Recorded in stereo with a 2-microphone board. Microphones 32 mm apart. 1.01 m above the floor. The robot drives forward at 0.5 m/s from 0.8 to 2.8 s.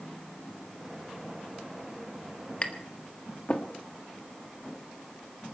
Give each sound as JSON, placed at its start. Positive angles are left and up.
{"t": 2.6, "sound": "tapping", "side_deg": 40, "distance_m": 1.4}